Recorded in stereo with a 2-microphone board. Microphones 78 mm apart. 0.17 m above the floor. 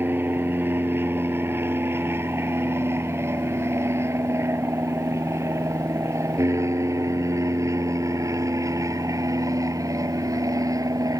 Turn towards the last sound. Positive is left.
turn(degrees=-50)  # may be behind; listen again after turning